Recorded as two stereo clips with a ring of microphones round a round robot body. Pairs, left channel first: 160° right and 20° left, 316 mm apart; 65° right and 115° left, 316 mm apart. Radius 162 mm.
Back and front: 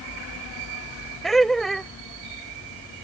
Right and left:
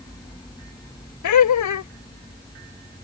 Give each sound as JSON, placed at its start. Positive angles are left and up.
{"t": 1.2, "sound": "laughter", "azimuth_deg": -70}